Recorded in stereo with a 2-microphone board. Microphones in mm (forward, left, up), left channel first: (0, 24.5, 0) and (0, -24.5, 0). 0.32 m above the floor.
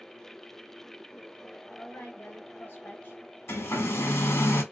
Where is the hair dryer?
65° left (ahead or behind), 1.7 m.